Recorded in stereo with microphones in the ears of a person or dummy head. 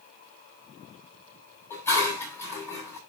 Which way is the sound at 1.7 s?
15° left (ahead or behind).